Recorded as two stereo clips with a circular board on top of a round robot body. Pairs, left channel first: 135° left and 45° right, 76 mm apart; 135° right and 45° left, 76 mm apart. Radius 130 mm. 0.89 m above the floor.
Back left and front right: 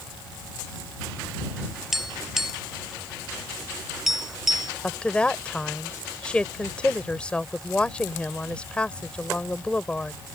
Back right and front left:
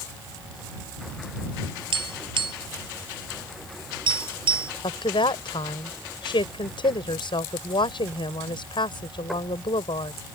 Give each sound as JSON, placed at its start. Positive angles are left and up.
{"t": 1.9, "sound": "tapping", "azimuth_deg": 40}
{"t": 4.8, "sound": "a woman speaking", "azimuth_deg": -150}